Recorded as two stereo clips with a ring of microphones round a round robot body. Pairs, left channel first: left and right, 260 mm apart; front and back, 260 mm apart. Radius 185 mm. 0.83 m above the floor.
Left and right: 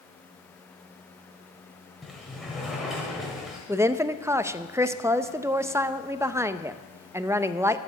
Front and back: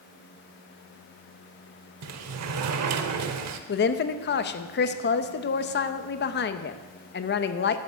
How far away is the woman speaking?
About 0.7 m.